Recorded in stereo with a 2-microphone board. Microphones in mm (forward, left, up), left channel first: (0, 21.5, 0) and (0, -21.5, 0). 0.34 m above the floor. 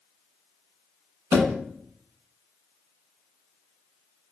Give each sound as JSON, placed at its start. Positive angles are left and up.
{"t": 1.3, "sound": "a thud", "side_deg": -80, "distance_m": 1.0}